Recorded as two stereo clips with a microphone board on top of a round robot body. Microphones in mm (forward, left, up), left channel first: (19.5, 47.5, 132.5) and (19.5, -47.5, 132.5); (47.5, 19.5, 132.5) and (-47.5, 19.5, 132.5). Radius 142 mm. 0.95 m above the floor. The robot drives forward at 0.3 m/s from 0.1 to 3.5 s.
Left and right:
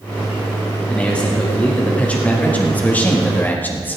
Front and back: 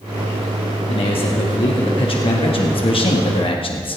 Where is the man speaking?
15° left, 2.5 m; by 4.0 s 20° left, 1.9 m.